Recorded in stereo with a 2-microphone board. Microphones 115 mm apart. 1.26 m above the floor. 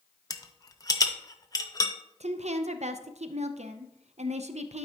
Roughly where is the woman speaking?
Right.